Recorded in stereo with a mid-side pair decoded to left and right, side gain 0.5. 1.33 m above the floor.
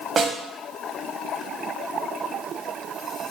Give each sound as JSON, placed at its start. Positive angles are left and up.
{"t": 0.2, "sound": "a snare drum", "azimuth_deg": -35, "distance_m": 1.0}